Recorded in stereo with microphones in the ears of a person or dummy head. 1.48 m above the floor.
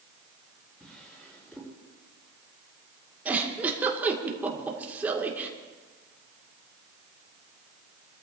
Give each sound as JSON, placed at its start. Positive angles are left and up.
{"t": 0.8, "sound": "a drawer", "side_deg": 5, "distance_m": 7.0}
{"t": 3.2, "sound": "a giggle", "side_deg": -10, "distance_m": 2.0}